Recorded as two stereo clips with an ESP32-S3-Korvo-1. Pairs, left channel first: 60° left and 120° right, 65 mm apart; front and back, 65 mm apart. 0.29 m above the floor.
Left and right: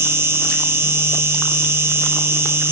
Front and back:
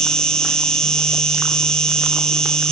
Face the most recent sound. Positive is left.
turn(degrees=-75)